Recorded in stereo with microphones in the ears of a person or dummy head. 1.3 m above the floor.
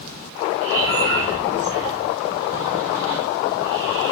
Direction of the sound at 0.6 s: 75° right (ahead or behind).